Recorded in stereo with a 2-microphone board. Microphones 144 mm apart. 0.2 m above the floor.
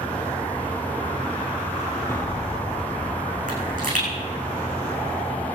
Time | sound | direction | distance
2.1 | an explosion | 20° left (ahead or behind) | 4.5 m
3.5 | a pop | 75° right (ahead or behind) | 6.5 m